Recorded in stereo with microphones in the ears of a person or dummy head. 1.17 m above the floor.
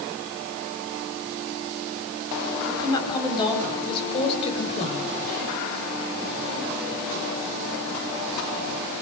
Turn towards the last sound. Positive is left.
turn(degrees=40)  # may be behind; listen again after turning